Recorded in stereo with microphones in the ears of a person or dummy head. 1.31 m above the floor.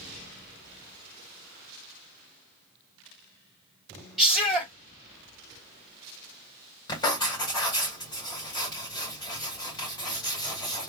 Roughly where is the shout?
Centre.